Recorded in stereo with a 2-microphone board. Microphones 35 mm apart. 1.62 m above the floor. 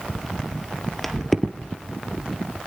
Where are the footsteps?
5° left (ahead or behind), 1.7 m.